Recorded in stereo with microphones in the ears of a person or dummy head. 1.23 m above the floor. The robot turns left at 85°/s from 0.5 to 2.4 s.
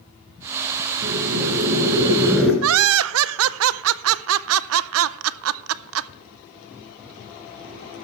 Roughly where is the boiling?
Ahead right.